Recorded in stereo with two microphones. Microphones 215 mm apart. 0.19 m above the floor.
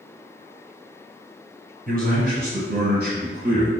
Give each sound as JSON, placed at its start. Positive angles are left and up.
{"t": 1.9, "sound": "a man speaking", "side_deg": -45, "distance_m": 2.0}